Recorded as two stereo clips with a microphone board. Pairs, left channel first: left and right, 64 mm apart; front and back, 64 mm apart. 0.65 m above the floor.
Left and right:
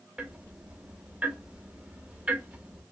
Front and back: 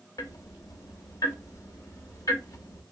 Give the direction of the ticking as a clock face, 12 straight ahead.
1 o'clock.